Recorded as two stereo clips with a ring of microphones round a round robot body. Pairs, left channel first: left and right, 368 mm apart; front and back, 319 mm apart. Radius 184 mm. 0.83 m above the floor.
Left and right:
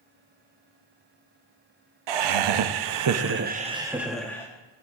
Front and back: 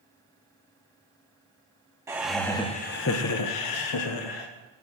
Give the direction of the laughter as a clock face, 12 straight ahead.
3 o'clock.